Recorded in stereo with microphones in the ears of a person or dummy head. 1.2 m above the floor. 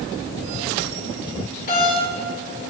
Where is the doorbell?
45° left (ahead or behind), 6.5 m.